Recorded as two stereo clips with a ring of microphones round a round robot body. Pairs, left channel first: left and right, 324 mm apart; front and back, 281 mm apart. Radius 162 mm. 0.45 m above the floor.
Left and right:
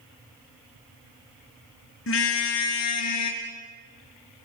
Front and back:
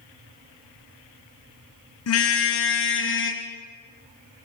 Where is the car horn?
35° left, 2.5 m; by 3.4 s 50° left, 3.5 m.